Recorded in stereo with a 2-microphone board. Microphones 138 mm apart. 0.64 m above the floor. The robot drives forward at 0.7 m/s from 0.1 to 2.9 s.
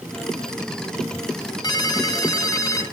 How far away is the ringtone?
About 2 m.